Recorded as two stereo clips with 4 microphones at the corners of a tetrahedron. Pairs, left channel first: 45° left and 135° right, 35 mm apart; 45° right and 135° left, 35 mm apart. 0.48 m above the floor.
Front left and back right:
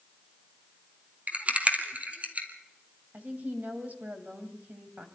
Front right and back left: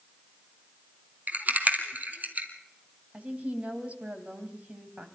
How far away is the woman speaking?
About 2.5 m.